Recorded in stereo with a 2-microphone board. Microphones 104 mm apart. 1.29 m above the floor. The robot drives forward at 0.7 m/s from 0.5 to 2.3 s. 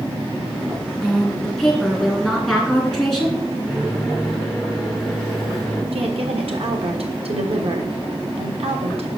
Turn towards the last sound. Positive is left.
turn(degrees=-65)  # may be behind; listen again after turning